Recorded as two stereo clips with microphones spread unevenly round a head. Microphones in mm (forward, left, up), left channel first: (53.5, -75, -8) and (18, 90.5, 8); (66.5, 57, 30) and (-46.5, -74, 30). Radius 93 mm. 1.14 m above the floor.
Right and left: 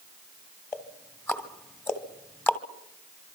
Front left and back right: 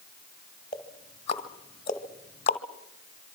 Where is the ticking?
Straight ahead, 1.3 m.